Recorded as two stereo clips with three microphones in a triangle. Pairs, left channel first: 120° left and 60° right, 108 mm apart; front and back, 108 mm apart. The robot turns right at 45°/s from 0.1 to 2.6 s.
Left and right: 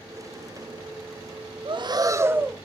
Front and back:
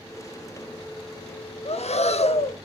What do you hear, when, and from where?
1.6 s breathing: 20° right, 0.5 m; by 2.5 s 20° left, 0.5 m